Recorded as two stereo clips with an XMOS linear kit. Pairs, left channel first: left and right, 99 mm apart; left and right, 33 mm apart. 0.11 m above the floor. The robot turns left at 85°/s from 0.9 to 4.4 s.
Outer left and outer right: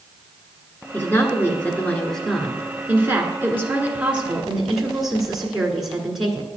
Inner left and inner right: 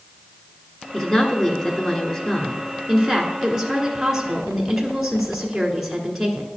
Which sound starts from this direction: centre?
A woman speaking, at 0.9 s.